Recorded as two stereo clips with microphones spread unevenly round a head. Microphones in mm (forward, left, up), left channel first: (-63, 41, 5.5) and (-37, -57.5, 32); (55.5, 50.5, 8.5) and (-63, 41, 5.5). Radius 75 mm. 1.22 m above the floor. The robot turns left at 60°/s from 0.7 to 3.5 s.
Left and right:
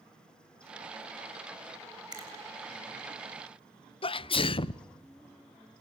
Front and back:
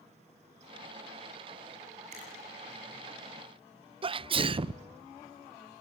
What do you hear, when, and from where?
2.1 s a finger snap: 125° right, 6.5 m; by 2.3 s 135° right, 6.5 m
4.0 s a sneeze: 140° left, 0.6 m